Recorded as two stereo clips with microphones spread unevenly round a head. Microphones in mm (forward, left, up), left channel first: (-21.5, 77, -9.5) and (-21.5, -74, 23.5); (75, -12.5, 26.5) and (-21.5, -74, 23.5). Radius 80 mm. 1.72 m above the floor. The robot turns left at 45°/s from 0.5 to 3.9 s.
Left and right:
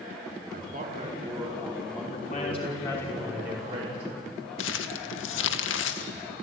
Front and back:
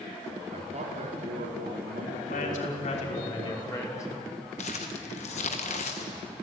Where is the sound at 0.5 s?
110° right, 4.5 m; by 3.1 s 130° left, 4.5 m.